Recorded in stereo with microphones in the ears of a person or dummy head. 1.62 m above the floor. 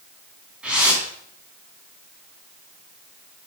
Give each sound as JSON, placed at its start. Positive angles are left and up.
{"t": 0.6, "sound": "a whoosh", "side_deg": -5, "distance_m": 2.0}